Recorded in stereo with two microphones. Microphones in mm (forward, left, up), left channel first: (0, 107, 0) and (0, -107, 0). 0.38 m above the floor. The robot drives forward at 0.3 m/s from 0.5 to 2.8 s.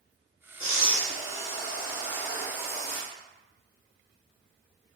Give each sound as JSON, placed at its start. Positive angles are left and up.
{"t": 0.6, "sound": "breathing", "side_deg": 70, "distance_m": 0.9}